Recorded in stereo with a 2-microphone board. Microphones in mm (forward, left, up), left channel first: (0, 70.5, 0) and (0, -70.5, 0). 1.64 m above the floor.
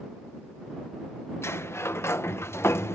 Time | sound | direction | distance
1.4 | a sliding door | 20° left (ahead or behind) | ?